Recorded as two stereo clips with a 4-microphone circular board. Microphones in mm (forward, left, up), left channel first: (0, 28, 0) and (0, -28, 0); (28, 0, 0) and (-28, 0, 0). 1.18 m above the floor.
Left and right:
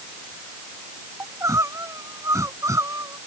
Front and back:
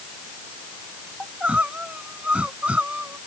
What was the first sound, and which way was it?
Crying, 110° right.